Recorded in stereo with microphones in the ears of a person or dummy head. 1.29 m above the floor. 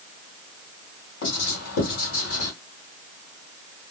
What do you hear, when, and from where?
1.2 s writing: 75° left (ahead or behind), 2 m